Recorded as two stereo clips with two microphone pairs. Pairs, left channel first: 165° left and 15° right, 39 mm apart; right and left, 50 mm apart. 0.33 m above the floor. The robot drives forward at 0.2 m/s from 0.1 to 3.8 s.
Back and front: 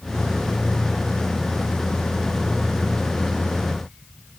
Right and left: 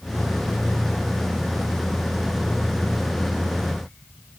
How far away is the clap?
I don't hear a clap.